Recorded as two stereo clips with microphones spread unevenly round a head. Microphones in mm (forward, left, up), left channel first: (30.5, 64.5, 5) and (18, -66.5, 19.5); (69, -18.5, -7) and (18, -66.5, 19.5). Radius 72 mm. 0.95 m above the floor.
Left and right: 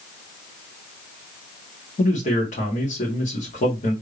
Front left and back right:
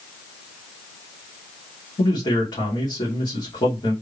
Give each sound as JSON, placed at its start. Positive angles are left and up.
{"t": 2.0, "sound": "a man speaking", "azimuth_deg": 55, "distance_m": 1.9}